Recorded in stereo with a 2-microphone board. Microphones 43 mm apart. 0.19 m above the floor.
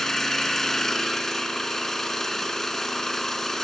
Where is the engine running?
10° left (ahead or behind), 0.7 m.